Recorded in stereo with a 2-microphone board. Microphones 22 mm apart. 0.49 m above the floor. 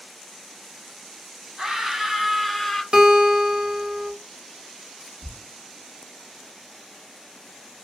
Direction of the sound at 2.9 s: 40° right (ahead or behind).